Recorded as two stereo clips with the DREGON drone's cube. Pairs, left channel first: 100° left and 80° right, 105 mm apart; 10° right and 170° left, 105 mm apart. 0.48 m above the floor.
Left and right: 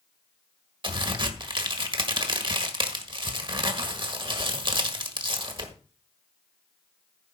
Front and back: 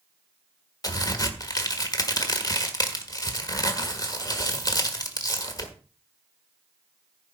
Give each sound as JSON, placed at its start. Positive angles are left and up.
{"t": 0.8, "sound": "a crack", "azimuth_deg": -55, "distance_m": 1.6}